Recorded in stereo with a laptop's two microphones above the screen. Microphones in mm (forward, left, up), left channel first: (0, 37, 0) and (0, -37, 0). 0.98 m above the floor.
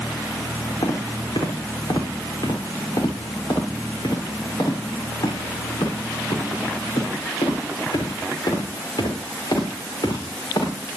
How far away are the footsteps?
About 5 m.